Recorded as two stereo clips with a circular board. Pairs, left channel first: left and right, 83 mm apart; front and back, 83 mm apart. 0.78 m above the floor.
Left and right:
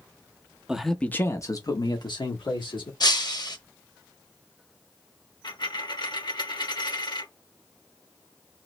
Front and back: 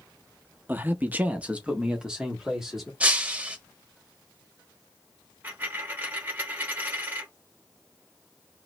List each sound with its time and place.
0.7 s a man speaking: 155° right, 0.6 m; by 2.9 s 95° left, 1.7 m
3.0 s breaking glass: 110° left, 0.8 m
5.4 s a dropped coin: 115° left, 1.2 m